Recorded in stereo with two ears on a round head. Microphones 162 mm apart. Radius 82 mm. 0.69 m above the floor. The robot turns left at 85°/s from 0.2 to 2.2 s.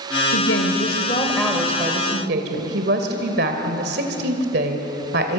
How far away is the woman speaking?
About 2.5 m.